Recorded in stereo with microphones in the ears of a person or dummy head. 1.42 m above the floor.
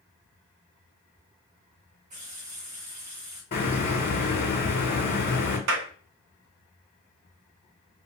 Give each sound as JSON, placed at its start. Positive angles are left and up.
{"t": 2.1, "sound": "a running tap", "side_deg": -40, "distance_m": 0.8}
{"t": 3.5, "sound": "a hiss", "side_deg": 45, "distance_m": 1.2}
{"t": 5.7, "sound": "a clap", "side_deg": -70, "distance_m": 0.6}